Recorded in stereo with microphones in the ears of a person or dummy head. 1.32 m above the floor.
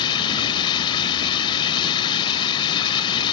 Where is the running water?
30° left (ahead or behind).